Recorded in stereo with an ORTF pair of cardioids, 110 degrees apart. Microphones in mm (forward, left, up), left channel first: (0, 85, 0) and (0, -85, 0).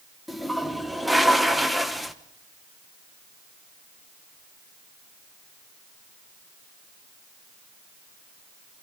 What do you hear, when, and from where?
0.3 s a toilet flushing: straight ahead, 1.1 m